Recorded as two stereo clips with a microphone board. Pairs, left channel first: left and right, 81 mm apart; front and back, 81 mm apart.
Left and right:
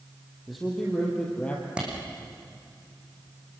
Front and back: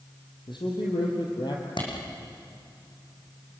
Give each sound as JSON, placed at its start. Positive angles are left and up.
{"t": 0.5, "sound": "a man speaking", "azimuth_deg": 0, "distance_m": 5.0}
{"t": 1.8, "sound": "a clap", "azimuth_deg": -15, "distance_m": 6.5}